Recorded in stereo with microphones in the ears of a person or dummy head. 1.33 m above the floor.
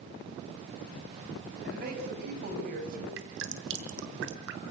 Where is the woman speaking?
55° right (ahead or behind), 10 m; by 3.1 s 50° right (ahead or behind), 8.5 m.